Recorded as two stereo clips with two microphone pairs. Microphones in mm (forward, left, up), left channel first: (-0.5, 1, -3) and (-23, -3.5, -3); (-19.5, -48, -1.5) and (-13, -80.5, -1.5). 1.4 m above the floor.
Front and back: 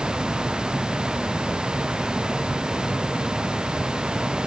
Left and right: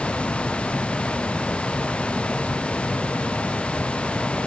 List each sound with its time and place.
Only background noise.